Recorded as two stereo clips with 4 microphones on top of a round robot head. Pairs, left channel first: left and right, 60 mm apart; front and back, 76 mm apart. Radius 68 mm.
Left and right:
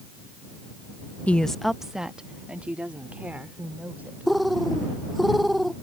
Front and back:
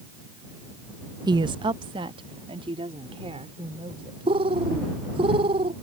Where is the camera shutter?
I don't hear a camera shutter.